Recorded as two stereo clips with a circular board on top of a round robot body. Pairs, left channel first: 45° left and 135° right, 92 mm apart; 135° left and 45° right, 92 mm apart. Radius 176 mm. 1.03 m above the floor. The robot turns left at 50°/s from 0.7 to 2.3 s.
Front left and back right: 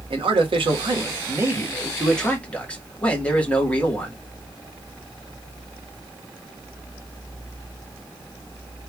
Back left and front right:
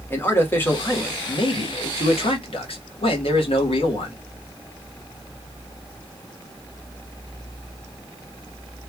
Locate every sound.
0.1 s a man speaking: 160° right, 1.4 m; by 4.2 s 120° left, 1.4 m